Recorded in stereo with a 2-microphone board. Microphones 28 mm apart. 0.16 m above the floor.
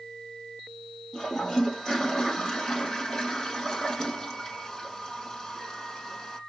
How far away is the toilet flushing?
About 3.5 m.